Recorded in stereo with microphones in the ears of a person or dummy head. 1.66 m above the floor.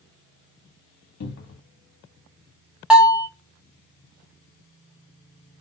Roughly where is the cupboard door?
Left.